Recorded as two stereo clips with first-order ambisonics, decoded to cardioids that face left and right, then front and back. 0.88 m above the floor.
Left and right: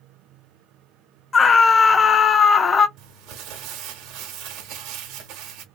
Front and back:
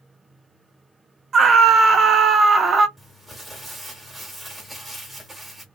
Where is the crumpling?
95° right, 1.0 m.